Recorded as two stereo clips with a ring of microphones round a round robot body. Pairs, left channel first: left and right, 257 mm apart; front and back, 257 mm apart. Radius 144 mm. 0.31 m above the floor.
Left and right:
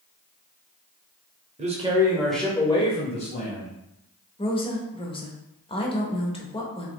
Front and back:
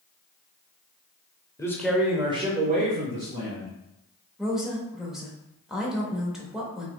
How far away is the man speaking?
About 1.0 m.